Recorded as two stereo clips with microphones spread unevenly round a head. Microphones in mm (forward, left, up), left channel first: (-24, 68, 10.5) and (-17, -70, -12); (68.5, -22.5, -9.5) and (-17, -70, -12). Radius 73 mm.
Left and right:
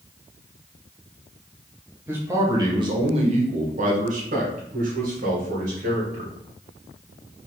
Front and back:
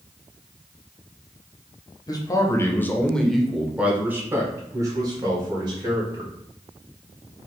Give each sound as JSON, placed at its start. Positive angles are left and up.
{"t": 2.1, "sound": "a man speaking", "azimuth_deg": -15, "distance_m": 1.0}